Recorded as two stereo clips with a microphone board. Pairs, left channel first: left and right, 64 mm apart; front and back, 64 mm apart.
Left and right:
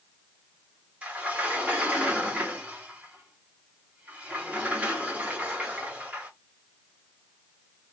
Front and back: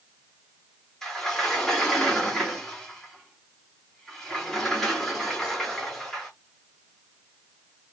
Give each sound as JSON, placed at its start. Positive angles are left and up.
{"t": 1.0, "sound": "a sliding door", "azimuth_deg": -75, "distance_m": 1.0}